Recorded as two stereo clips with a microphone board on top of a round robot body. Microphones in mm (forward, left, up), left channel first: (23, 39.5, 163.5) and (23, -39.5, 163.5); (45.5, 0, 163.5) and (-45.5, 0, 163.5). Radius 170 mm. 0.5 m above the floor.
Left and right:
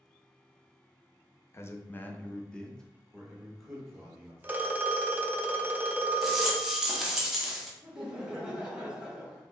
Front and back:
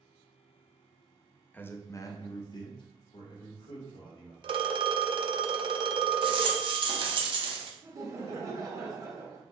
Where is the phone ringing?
155° right, 0.5 m.